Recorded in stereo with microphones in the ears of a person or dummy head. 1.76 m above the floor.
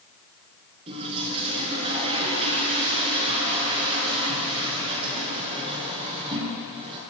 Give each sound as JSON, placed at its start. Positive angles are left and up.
{"t": 0.9, "sound": "a toilet flushing", "side_deg": -35, "distance_m": 6.0}